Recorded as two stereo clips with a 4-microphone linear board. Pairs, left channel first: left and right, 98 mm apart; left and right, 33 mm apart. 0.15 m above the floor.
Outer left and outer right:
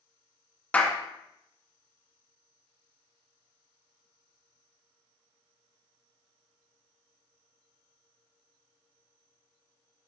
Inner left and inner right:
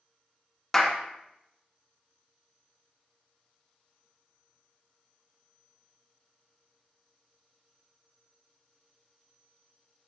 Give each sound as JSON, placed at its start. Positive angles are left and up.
{"t": 0.7, "sound": "a clap", "side_deg": 15, "distance_m": 1.3}